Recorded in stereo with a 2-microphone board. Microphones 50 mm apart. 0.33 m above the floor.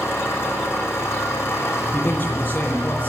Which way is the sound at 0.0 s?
55° left (ahead or behind).